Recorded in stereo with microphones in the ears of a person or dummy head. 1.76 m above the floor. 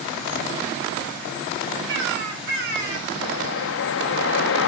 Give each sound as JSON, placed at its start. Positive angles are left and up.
{"t": 1.9, "sound": "a bird", "side_deg": -70, "distance_m": 4.0}
{"t": 3.2, "sound": "a whoosh", "side_deg": 65, "distance_m": 0.9}